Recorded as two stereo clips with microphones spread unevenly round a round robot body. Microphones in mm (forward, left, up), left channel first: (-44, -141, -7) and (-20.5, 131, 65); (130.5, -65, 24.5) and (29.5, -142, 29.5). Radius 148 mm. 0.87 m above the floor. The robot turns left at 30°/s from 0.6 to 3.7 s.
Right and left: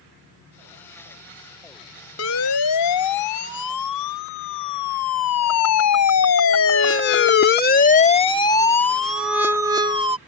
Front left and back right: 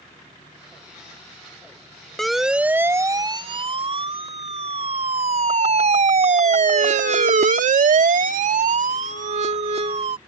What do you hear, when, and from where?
2.2 s a siren: 50° right; by 10.2 s 160° left